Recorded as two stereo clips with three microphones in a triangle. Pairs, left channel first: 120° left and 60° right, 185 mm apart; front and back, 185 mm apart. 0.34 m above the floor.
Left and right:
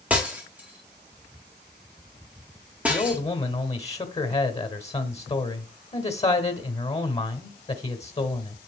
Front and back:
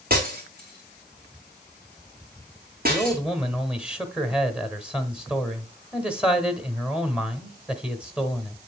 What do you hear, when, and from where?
0.1 s breaking glass: 145° right, 2.5 m
2.9 s a man speaking: 100° left, 1.0 m